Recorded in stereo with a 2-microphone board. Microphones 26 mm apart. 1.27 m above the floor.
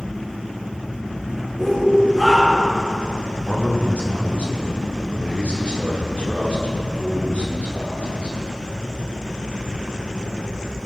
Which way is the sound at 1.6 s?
20° left (ahead or behind).